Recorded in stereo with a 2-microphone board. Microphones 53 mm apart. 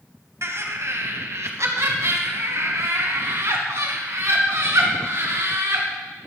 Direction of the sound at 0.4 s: 60° right (ahead or behind).